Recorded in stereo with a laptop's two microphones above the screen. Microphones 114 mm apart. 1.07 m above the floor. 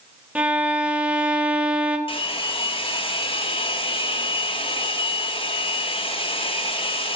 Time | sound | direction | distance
0.3 | a violin | 10° right (ahead or behind) | 0.9 m
2.1 | a hair dryer | 50° left (ahead or behind) | 0.9 m